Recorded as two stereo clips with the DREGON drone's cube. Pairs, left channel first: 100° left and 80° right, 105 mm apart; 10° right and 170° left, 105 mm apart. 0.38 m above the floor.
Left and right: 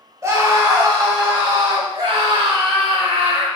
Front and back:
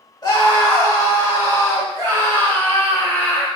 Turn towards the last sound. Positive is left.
turn(degrees=-75)